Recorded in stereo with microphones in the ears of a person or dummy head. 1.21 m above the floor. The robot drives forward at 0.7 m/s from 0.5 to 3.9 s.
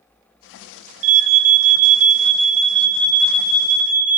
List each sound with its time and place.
1.0 s an alarm: 35° right (ahead or behind), 1.4 m; by 4.2 s 20° right (ahead or behind), 2.5 m